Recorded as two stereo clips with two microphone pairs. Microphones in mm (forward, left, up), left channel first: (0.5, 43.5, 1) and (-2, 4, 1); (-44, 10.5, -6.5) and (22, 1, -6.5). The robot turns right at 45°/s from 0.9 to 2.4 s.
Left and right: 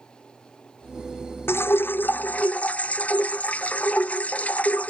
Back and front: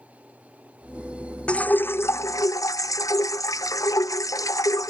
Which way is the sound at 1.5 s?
100° left.